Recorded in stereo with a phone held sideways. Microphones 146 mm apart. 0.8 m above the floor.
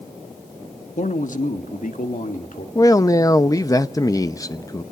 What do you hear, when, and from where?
1.0 s a man speaking: 55° left (ahead or behind), 1.3 m; by 2.6 s 65° left (ahead or behind), 2.5 m
2.8 s a man speaking: 25° left (ahead or behind), 0.7 m